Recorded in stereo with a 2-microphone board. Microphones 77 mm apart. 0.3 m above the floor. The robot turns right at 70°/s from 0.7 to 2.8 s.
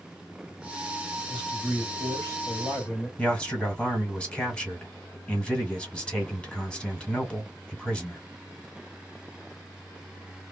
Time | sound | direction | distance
1.3 | a man speaking | 10° right | 1.9 m
3.2 | a man speaking | 15° left (ahead or behind) | 1.5 m